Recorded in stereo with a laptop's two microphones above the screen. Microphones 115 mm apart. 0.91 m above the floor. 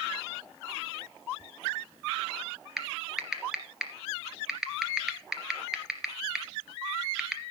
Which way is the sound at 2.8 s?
5° right (ahead or behind).